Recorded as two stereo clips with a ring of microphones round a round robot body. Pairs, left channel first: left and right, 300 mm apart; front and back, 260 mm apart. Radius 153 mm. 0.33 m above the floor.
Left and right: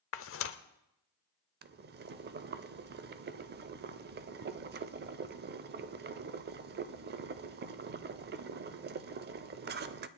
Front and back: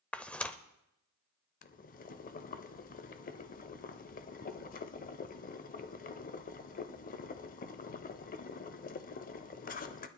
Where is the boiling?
45° right, 0.6 m.